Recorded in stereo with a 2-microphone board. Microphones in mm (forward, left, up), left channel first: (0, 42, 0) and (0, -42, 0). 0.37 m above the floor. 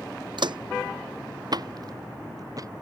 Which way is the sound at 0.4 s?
65° right (ahead or behind).